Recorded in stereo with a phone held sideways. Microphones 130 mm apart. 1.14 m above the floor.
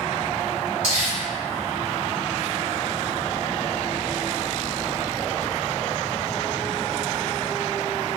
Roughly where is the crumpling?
Left.